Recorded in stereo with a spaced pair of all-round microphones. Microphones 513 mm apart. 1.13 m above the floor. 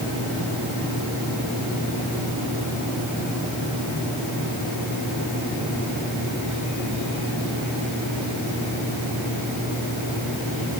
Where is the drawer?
I don't hear a drawer.